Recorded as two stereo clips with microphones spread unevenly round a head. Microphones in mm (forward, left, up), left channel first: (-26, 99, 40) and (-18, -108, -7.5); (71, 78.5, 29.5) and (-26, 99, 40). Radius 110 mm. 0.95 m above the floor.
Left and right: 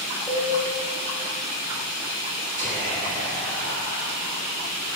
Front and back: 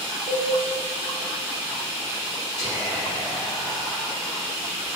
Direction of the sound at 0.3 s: 170° right.